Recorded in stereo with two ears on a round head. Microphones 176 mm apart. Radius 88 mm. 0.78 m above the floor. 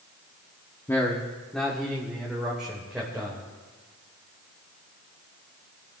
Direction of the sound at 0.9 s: 15° left (ahead or behind).